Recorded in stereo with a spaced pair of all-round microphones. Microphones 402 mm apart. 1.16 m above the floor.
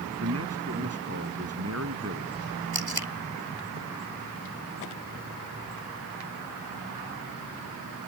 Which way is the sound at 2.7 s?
70° right (ahead or behind).